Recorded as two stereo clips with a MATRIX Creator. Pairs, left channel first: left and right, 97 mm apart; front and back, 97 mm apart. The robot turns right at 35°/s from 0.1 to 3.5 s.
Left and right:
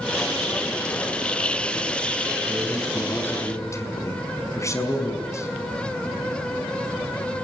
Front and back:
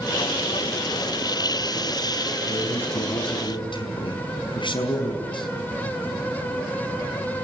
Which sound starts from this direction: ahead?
A man speaking, at 2.5 s.